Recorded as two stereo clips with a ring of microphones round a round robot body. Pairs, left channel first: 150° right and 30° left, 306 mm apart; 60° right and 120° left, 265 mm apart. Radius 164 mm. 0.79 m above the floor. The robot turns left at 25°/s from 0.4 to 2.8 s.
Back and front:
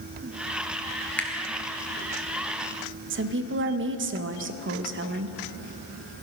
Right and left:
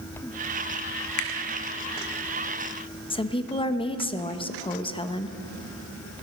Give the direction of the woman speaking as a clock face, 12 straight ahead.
12 o'clock.